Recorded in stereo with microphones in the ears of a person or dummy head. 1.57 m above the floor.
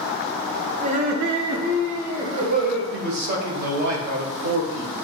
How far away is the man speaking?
About 1.0 m.